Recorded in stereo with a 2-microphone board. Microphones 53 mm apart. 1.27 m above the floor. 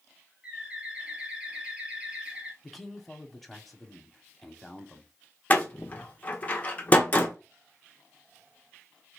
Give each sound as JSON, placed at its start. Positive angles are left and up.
{"t": 0.4, "sound": "a bird", "side_deg": -20, "distance_m": 1.2}
{"t": 2.6, "sound": "a man speaking", "side_deg": 5, "distance_m": 0.8}
{"t": 5.5, "sound": "a door slam", "side_deg": 30, "distance_m": 0.8}